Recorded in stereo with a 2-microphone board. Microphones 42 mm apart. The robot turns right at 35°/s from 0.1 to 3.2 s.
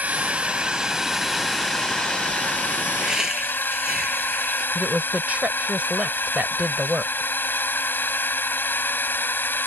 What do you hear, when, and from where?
0.0 s a drone: 40° right; by 9.7 s 65° left
3.0 s laughter: 20° right (ahead or behind); by 4.7 s 10° right (ahead or behind)
4.8 s a woman speaking: 40° right (ahead or behind)